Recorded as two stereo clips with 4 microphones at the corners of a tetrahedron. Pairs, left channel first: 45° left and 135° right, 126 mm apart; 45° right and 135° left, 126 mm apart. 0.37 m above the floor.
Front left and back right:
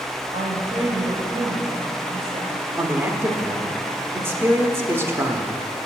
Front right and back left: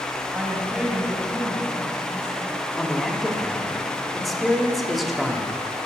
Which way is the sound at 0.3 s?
150° right.